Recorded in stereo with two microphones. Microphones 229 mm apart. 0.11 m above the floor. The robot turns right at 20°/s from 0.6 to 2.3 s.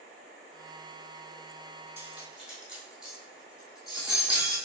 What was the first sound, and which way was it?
Cutlery clinking, 10° right (ahead or behind).